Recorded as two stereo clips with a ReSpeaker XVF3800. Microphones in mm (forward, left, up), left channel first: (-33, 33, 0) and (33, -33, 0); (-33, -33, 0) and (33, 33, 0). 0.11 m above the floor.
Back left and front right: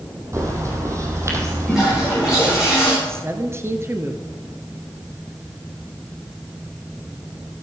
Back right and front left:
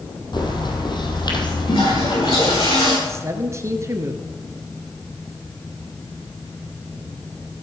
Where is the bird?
100° right, 3 m.